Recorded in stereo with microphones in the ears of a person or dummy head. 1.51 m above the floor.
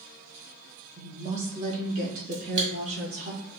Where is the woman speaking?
40° right (ahead or behind), 1.3 m; by 3.3 s 45° right (ahead or behind), 4.5 m.